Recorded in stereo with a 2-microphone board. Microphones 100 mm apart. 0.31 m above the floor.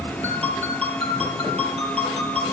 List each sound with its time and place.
0.2 s a ringtone: 80° right, 4 m